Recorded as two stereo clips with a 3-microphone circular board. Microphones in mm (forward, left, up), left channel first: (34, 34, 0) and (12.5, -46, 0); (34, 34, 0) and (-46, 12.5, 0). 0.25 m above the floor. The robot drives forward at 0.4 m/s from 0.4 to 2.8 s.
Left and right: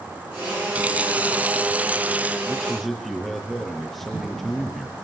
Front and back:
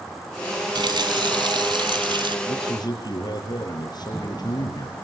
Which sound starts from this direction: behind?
A running tap, at 0.8 s.